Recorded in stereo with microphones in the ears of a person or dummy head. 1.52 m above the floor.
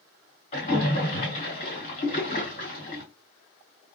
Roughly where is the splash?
Left.